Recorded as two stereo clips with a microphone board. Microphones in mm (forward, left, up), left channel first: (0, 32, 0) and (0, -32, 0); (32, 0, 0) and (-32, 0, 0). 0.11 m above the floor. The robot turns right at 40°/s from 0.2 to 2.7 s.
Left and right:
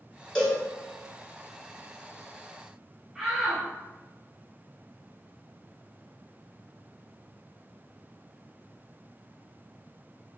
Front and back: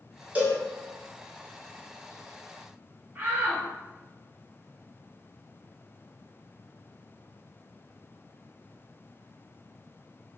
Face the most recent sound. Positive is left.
turn(degrees=-175)